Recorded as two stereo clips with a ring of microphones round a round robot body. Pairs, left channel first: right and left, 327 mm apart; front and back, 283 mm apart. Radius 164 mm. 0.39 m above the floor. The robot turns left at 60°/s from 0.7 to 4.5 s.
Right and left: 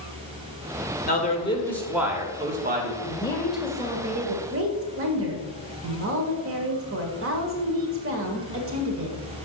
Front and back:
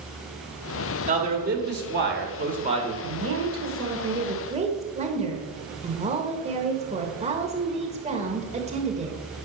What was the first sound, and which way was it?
A man speaking, 130° right.